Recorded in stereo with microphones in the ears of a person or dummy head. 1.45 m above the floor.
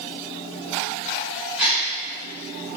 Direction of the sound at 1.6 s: 5° right (ahead or behind).